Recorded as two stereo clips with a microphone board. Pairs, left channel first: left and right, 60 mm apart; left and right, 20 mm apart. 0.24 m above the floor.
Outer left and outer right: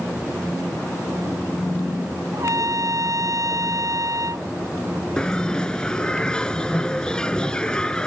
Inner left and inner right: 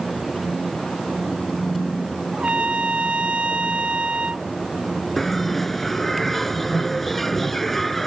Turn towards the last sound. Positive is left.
turn(degrees=10)  # may be behind; listen again after turning